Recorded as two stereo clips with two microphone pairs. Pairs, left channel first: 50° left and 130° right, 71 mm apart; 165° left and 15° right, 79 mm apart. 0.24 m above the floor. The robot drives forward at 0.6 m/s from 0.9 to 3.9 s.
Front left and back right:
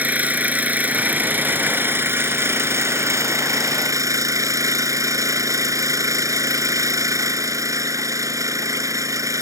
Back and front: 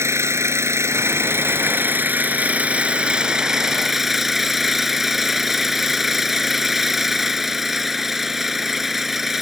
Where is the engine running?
65° right; by 9.4 s 100° right.